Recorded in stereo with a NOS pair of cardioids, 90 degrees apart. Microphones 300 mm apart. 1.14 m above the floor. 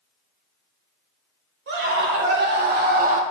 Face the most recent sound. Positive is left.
turn(degrees=-25)